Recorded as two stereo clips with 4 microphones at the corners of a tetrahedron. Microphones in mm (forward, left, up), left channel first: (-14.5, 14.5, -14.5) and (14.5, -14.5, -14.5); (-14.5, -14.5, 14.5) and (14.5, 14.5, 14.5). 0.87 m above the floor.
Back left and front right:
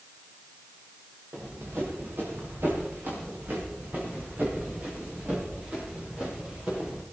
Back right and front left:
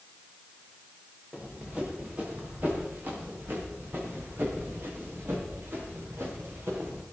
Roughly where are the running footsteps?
Ahead.